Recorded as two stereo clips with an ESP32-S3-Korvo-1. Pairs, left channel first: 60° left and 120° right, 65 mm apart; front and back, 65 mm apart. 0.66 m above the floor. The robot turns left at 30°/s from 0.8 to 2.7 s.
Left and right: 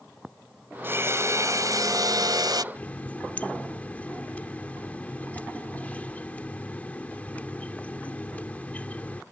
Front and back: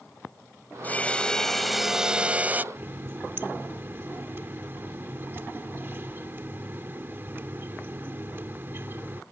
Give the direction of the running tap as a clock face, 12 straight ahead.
8 o'clock.